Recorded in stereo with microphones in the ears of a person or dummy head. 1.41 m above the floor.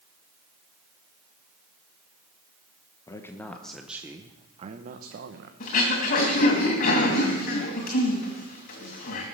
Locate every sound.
3.1 s a man speaking: 15° left (ahead or behind), 1.0 m; by 5.5 s 75° right (ahead or behind), 1.0 m
5.6 s throat clearing: 55° left (ahead or behind), 2.5 m